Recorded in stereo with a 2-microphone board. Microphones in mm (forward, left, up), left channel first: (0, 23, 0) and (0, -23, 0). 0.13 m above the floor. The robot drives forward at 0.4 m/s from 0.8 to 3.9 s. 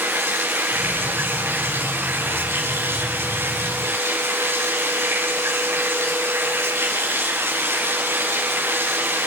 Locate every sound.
0.0 s running water: 55° right (ahead or behind), 7.5 m; by 9.3 s 65° right (ahead or behind), 7 m